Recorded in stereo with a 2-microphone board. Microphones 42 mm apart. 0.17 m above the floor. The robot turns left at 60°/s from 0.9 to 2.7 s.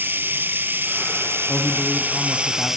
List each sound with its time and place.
0.0 s running water: 60° right, 1.3 m; by 2.8 s 170° right, 1.3 m
1.5 s a man speaking: 80° left, 1.5 m; by 2.8 s 5° left, 1.5 m